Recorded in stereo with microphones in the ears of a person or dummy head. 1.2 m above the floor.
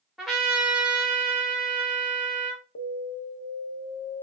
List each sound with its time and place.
0.2 s a trumpet: 5° right (ahead or behind), 0.9 m
2.8 s an alarm: 80° left, 0.6 m